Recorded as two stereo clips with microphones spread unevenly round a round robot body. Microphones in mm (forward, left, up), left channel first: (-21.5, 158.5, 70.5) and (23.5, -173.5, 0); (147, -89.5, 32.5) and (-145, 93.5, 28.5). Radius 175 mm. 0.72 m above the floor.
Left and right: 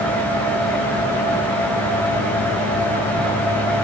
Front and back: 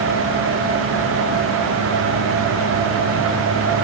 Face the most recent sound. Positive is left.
No sound to turn to.